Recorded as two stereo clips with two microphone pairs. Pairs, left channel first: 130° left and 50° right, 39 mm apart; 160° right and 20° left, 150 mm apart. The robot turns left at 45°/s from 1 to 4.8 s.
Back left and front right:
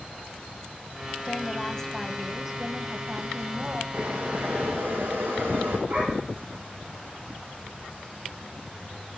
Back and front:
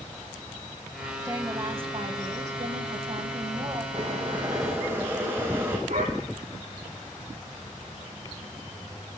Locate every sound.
1.2 s a woman speaking: 85° left, 1.7 m; by 3.8 s 30° right, 1.7 m
3.9 s boiling: 15° right, 4.5 m; by 5.8 s 55° right, 4.5 m
5.9 s a dog barking: straight ahead, 7 m